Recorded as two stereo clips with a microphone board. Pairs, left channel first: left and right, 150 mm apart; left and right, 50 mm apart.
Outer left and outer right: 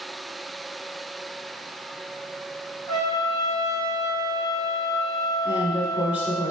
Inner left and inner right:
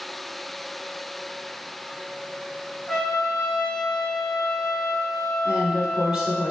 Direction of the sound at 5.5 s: 10° right (ahead or behind).